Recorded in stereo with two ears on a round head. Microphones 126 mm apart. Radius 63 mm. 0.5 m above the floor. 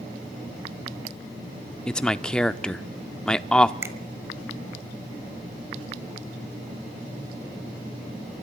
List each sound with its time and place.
1.9 s a man speaking: 5° left (ahead or behind), 0.7 m
3.8 s a finger snap: 20° right (ahead or behind), 1.8 m